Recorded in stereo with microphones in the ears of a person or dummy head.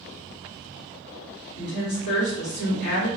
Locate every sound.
1.6 s a woman speaking: 55° left (ahead or behind), 1.5 m